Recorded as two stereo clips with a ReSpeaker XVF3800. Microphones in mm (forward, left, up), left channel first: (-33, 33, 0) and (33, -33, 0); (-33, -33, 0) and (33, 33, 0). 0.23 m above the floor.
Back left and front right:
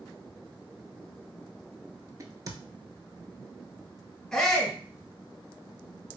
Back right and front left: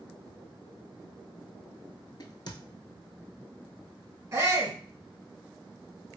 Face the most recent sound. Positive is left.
turn(degrees=60)